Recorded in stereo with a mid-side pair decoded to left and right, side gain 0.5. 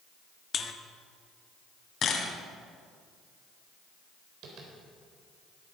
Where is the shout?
No shout in this recording.